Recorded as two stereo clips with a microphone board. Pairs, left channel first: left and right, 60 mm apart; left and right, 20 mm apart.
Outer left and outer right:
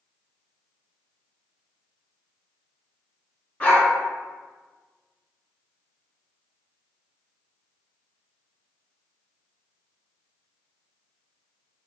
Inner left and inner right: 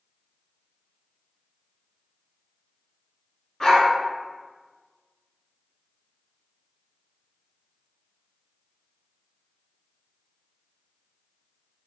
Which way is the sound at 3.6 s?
30° left (ahead or behind).